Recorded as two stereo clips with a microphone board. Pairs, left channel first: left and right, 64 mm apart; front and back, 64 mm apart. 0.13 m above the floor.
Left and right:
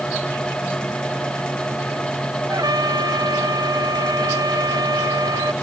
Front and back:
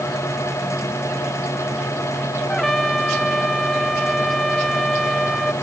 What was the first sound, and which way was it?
A trumpet, 85° right.